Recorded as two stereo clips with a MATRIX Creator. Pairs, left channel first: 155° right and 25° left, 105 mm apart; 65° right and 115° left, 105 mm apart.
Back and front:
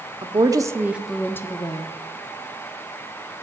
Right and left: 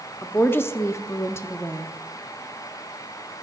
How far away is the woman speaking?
About 1.1 m.